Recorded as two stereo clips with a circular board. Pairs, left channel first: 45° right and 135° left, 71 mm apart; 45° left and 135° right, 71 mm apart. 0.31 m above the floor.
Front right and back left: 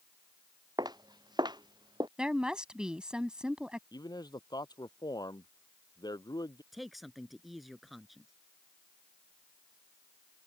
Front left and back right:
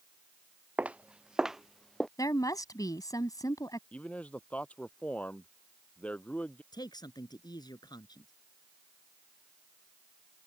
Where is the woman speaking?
60° left.